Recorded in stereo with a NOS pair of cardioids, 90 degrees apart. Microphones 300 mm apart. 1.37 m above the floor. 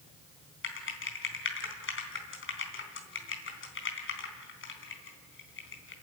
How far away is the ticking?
I don't hear ticking.